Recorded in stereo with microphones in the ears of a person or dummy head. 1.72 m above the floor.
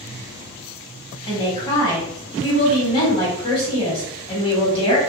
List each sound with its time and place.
1.3 s a woman speaking: 25° left (ahead or behind), 1.6 m